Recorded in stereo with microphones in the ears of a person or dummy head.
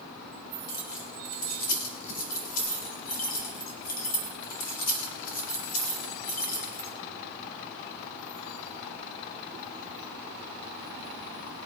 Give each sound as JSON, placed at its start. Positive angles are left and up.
{"t": 0.7, "sound": "keys jangling", "side_deg": 45, "distance_m": 3.5}